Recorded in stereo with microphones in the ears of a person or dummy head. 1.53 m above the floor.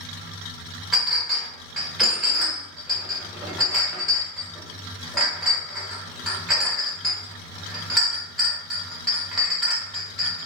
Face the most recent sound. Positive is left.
turn(degrees=0)  # may be behind; listen again after turning